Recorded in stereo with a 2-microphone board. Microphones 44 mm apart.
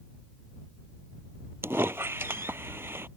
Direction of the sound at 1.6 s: 65° right (ahead or behind).